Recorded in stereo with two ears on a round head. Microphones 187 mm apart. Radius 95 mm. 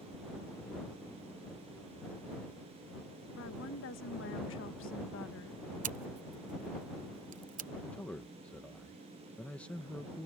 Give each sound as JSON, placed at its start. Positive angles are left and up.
{"t": 3.4, "sound": "a woman speaking", "side_deg": 65}
{"t": 5.8, "sound": "scissors", "side_deg": -40}
{"t": 7.9, "sound": "a man speaking", "side_deg": 5}